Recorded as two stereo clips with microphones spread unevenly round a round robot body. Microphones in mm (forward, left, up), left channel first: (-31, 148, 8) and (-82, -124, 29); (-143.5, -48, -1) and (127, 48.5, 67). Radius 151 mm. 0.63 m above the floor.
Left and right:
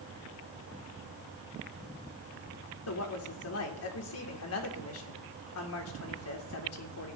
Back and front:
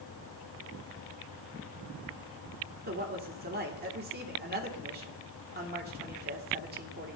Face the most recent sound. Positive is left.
turn(degrees=80)